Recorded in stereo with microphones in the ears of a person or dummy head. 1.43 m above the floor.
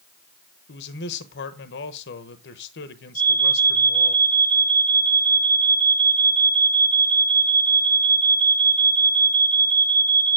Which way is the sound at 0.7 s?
55° left (ahead or behind).